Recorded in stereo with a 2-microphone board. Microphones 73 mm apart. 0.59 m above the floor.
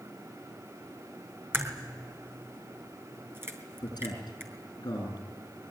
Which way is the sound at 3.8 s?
65° left (ahead or behind).